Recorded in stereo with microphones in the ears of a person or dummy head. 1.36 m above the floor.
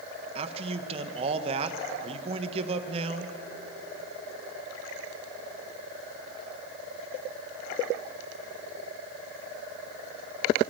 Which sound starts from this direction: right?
A man speaking, at 0.3 s.